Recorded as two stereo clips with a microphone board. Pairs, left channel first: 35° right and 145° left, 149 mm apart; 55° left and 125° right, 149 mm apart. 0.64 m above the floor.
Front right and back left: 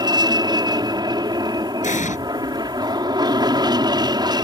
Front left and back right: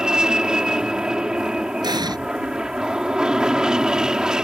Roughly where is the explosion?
Ahead right.